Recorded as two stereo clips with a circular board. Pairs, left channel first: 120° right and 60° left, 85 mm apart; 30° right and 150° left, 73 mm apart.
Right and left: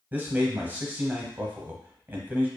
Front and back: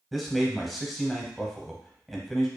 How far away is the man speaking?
About 0.9 m.